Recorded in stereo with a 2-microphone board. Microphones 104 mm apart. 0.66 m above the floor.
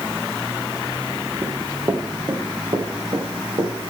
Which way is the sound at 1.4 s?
30° right (ahead or behind).